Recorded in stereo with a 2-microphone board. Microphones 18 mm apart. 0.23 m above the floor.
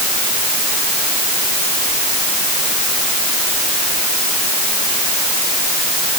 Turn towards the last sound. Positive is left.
No sound to turn to.